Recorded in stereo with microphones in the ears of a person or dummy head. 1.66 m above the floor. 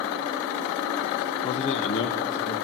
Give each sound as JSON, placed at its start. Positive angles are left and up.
{"t": 1.4, "sound": "a man speaking", "side_deg": 30, "distance_m": 0.6}